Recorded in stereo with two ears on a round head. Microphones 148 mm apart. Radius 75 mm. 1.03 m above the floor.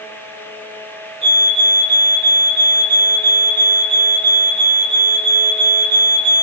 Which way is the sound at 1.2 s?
40° right (ahead or behind).